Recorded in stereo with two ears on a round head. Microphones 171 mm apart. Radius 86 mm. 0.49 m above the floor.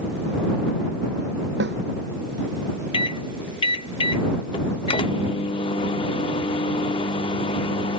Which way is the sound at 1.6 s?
70° right (ahead or behind).